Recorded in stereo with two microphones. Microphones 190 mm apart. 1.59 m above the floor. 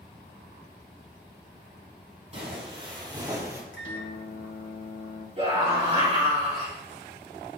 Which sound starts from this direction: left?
A microwave, at 3.7 s.